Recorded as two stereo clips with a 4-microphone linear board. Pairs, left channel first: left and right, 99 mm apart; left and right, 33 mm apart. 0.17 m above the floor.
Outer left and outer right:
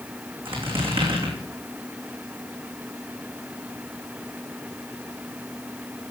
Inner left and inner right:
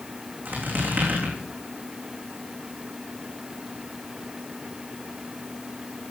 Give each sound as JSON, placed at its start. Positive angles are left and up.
{"t": 0.5, "sound": "a squeak", "side_deg": -60, "distance_m": 3.0}